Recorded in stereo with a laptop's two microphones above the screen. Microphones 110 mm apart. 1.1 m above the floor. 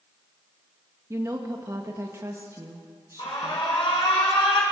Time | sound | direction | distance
1.1 | a woman speaking | 25° right (ahead or behind) | 1.4 m
3.2 | an alarm | 50° left (ahead or behind) | 7.5 m